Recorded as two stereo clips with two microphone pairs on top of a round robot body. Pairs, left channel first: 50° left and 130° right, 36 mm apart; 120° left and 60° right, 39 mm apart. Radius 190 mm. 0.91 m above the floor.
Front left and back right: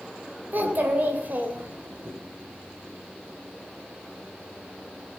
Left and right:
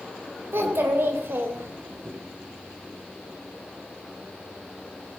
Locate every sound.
0.5 s a child speaking: 85° right, 2.5 m